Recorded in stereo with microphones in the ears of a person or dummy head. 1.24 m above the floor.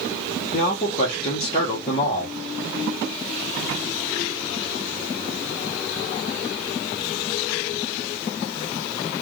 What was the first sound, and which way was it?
A man speaking, 30° left (ahead or behind).